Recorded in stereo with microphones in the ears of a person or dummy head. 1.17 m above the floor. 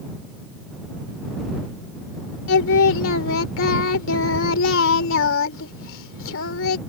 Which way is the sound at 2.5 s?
70° left (ahead or behind).